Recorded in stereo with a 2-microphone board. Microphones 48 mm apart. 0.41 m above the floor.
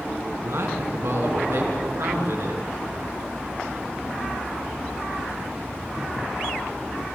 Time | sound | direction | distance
0.4 | a man speaking | 70° right (ahead or behind) | 3.5 m